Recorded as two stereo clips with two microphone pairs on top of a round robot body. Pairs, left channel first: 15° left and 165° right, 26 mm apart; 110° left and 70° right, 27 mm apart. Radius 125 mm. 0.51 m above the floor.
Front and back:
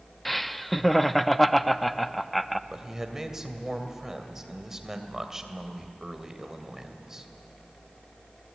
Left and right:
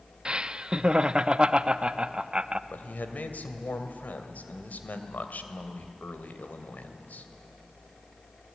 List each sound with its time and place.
0.2 s laughter: 45° right, 0.8 m
2.7 s a man speaking: 120° left, 2.5 m